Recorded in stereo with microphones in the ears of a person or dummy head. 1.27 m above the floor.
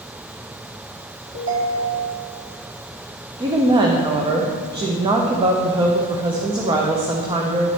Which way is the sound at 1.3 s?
70° right (ahead or behind).